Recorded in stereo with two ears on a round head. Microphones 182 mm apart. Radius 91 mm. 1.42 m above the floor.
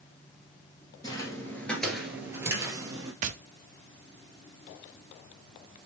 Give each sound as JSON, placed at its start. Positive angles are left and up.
{"t": 1.0, "sound": "footsteps", "side_deg": 20, "distance_m": 1.6}
{"t": 3.2, "sound": "tapping", "side_deg": -40, "distance_m": 0.5}